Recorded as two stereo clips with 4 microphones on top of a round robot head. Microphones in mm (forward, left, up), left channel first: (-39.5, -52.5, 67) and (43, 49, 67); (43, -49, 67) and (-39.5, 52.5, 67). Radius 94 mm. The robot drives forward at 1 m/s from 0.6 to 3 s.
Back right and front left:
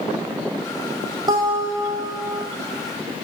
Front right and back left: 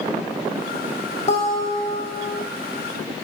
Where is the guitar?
10° right, 5.5 m.